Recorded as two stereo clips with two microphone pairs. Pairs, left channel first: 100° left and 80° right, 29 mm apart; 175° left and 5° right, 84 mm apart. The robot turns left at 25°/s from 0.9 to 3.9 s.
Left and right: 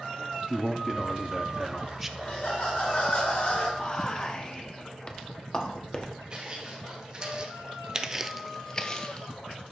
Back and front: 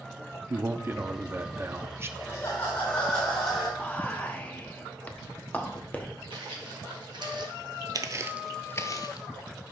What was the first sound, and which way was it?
A man speaking, 20° left.